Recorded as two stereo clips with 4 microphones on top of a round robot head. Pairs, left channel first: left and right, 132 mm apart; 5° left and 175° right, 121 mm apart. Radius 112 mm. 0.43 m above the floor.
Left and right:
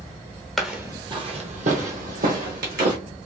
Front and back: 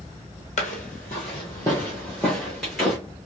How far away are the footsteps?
About 0.5 m.